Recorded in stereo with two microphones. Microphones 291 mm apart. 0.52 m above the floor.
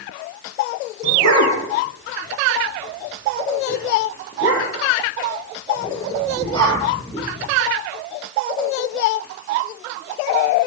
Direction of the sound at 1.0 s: 60° left (ahead or behind).